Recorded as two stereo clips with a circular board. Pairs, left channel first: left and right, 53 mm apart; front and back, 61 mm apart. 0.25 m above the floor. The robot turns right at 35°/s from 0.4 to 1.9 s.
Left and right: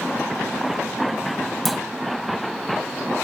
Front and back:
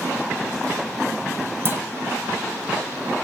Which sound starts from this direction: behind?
A clunk, at 1.6 s.